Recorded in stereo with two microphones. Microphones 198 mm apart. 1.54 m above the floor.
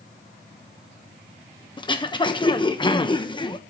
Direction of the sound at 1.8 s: 25° left (ahead or behind).